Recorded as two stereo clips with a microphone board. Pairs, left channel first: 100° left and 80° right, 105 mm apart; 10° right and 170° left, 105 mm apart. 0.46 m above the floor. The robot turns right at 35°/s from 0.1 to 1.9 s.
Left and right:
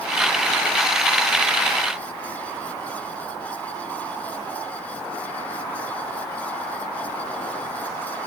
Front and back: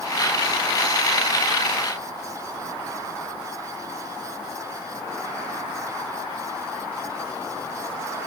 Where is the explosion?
I don't hear an explosion.